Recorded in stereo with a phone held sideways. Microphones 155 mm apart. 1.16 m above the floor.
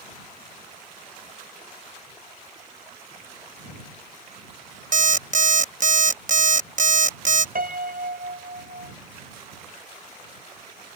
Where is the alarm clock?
55° right (ahead or behind).